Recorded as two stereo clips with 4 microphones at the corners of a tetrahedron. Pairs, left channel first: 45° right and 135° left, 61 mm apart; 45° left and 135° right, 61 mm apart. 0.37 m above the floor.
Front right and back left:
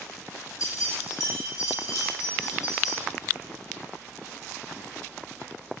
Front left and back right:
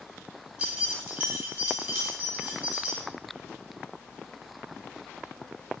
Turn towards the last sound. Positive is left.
turn(degrees=-70)